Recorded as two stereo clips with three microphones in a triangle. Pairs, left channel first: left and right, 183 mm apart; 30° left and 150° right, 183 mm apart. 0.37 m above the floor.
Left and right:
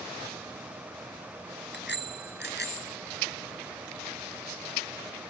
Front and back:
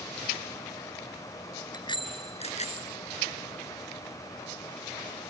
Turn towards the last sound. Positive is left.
turn(degrees=70)